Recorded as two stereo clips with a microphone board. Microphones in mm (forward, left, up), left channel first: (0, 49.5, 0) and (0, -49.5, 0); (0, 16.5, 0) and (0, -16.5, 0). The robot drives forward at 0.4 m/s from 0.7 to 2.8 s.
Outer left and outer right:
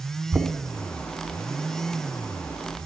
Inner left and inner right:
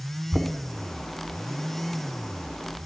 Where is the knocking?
15° right (ahead or behind), 0.7 m.